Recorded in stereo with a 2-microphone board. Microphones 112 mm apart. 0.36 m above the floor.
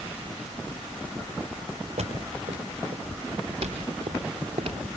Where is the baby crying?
I don't hear a baby crying.